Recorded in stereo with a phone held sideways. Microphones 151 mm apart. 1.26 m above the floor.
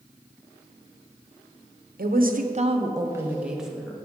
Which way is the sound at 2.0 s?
75° right (ahead or behind).